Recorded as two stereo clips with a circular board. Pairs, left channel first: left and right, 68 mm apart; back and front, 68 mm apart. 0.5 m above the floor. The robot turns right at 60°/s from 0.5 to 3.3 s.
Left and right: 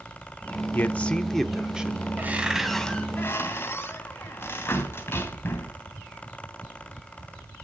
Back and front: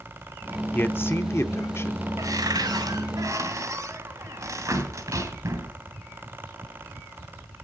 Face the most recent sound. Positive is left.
turn(degrees=35)